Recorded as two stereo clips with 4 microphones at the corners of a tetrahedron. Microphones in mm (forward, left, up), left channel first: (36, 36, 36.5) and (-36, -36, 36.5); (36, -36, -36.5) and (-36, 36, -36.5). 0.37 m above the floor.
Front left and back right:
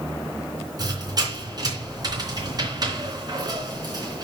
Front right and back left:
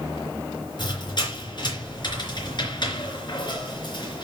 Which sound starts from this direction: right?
A squeak, at 0.8 s.